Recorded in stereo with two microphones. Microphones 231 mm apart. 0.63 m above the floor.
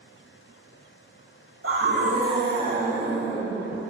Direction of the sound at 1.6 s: 65° right (ahead or behind).